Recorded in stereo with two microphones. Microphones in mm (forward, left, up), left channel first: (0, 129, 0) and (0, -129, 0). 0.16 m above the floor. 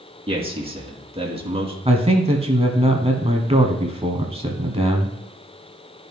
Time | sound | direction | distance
0.3 | a man speaking | 20° right (ahead or behind) | 2 m
1.9 | a man speaking | 25° right (ahead or behind) | 1.1 m